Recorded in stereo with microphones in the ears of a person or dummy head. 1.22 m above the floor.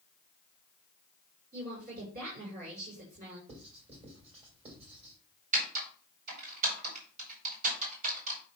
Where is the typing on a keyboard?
45° right (ahead or behind), 4.5 m.